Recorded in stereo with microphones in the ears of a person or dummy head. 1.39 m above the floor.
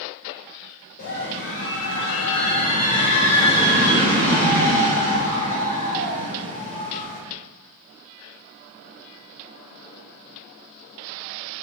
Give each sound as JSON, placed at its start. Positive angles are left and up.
{"t": 1.0, "sound": "a scream", "side_deg": 55, "distance_m": 0.8}